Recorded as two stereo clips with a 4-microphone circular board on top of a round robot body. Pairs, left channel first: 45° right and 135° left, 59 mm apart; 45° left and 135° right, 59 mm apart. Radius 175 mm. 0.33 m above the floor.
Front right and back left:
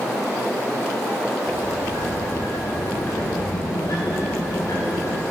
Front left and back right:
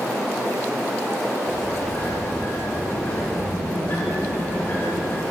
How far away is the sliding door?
About 0.9 m.